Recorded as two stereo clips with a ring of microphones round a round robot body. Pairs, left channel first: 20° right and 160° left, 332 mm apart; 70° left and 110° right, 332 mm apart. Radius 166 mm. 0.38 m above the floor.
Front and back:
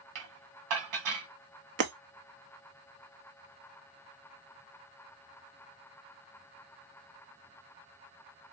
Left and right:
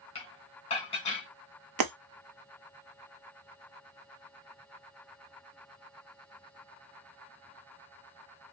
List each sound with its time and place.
0.1 s dishes clattering: 140° left, 1.1 m
1.8 s breaking glass: 145° right, 0.7 m